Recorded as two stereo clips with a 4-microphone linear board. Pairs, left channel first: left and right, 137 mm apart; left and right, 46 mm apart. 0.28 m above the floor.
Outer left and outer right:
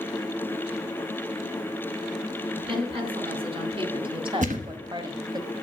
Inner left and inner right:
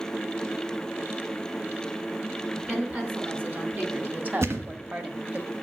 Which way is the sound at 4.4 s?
65° right (ahead or behind).